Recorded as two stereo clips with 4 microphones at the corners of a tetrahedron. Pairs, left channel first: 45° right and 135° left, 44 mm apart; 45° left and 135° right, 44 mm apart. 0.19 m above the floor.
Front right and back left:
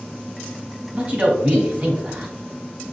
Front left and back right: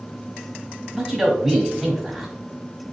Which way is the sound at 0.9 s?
140° left.